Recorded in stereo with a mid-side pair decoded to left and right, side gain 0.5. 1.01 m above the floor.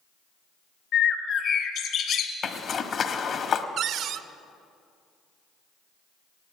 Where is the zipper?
50° left, 1.2 m.